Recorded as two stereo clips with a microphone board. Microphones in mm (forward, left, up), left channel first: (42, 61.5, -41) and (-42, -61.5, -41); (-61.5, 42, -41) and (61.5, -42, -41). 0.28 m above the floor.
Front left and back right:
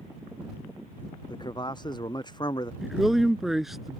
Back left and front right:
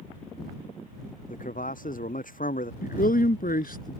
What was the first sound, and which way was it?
A man speaking, 115° left.